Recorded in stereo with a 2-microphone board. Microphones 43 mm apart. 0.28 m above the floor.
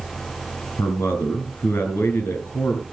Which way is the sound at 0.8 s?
65° left (ahead or behind).